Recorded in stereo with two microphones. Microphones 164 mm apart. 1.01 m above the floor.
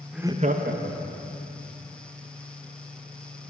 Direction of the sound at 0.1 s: Centre (ahead or behind).